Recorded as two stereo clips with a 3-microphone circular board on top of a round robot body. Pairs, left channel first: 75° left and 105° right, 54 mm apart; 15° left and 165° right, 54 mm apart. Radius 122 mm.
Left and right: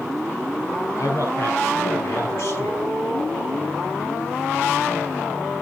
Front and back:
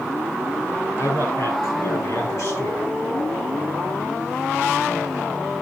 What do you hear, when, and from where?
1.0 s a man speaking: 45° left, 6.5 m; by 2.9 s 30° left, 6 m